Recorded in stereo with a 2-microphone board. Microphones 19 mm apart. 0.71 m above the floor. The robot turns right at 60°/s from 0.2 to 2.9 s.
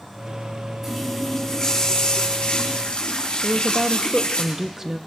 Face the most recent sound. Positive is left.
turn(degrees=-20)  # may be behind; listen again after turning